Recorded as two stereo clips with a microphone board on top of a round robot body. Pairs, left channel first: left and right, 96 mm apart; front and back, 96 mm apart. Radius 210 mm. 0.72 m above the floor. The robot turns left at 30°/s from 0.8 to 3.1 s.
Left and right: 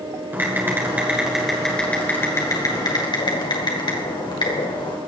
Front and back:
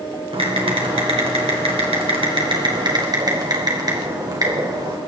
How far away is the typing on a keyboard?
About 3 m.